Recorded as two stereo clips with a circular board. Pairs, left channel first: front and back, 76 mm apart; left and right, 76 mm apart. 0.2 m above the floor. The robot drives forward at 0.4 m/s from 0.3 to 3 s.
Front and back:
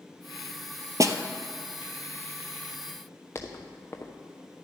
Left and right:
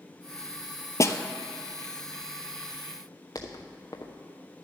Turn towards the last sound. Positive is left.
turn(degrees=55)